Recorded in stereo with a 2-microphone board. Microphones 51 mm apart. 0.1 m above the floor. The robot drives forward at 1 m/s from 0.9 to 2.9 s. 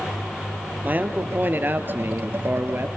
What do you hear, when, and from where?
0.8 s a man speaking: 35° right (ahead or behind), 2.5 m; by 2.9 s 45° right (ahead or behind), 2 m